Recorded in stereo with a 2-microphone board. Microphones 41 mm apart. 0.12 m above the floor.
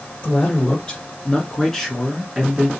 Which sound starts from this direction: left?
A man speaking, at 0.2 s.